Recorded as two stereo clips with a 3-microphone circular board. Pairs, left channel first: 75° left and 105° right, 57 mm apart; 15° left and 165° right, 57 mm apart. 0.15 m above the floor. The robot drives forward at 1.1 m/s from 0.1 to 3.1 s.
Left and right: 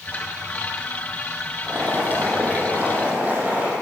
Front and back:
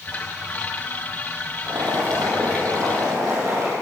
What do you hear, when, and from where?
1.7 s boiling: 165° right, 7 m